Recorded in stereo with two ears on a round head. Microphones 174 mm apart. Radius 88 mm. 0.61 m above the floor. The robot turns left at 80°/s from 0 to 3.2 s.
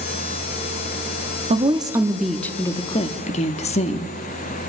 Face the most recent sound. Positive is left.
turn(degrees=105)